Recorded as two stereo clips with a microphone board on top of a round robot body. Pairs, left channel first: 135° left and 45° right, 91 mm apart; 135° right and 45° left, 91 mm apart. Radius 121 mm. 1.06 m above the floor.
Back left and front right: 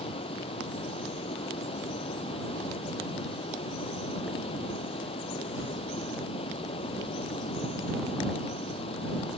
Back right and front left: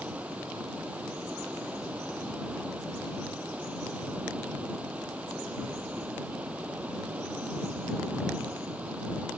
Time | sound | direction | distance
0.0 | running water | 120° left | ?